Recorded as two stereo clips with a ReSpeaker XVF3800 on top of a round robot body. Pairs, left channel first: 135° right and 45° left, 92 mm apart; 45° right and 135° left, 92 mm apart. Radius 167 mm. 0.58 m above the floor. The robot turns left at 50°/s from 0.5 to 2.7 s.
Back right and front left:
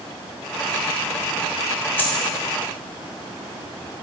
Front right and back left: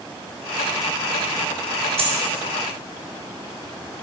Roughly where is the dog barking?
I don't hear a dog barking.